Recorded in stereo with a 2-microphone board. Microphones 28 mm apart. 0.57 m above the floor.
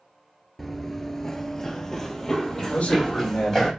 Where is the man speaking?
65° left (ahead or behind), 2.0 m.